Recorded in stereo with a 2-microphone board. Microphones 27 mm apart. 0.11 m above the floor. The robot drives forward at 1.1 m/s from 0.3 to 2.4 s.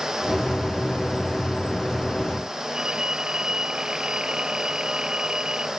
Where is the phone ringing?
35° right (ahead or behind).